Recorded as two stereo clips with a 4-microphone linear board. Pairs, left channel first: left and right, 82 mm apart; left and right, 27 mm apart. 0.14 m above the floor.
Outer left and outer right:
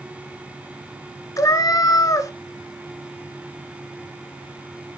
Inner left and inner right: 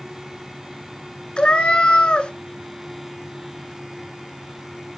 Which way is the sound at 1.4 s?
45° left (ahead or behind).